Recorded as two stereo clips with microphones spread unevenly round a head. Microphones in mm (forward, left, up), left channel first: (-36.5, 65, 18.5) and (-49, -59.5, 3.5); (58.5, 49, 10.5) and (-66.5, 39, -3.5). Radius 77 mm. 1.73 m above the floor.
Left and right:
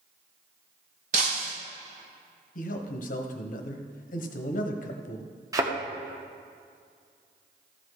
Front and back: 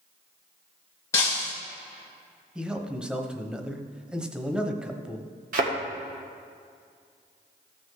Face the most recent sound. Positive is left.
turn(degrees=-160)